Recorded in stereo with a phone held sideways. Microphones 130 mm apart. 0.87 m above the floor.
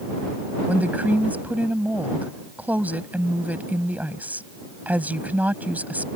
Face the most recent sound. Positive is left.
turn(degrees=-15)  # may be behind; listen again after turning